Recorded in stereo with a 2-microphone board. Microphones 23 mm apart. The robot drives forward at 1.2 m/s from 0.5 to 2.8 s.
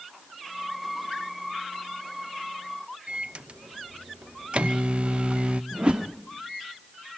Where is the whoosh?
45° right (ahead or behind), 1.2 m.